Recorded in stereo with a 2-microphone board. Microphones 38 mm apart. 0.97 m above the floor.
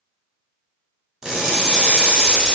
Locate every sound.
1.2 s crushing: 20° right (ahead or behind), 1.1 m